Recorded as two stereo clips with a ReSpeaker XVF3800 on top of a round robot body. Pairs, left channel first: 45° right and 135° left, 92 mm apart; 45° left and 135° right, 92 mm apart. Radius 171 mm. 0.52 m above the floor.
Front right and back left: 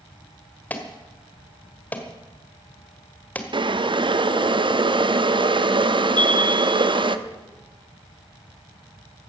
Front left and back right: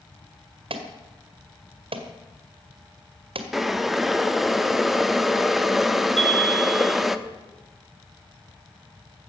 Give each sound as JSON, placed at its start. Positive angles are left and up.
{"t": 0.7, "sound": "an alarm", "azimuth_deg": -120, "distance_m": 1.7}
{"t": 3.5, "sound": "boiling", "azimuth_deg": 135, "distance_m": 1.0}
{"t": 6.2, "sound": "a chime", "azimuth_deg": -120, "distance_m": 1.3}